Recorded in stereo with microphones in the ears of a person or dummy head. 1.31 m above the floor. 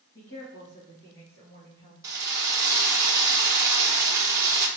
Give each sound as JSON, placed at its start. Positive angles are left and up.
{"t": 0.1, "sound": "a woman speaking", "side_deg": 50, "distance_m": 1.1}
{"t": 2.0, "sound": "a drill", "side_deg": -15, "distance_m": 0.7}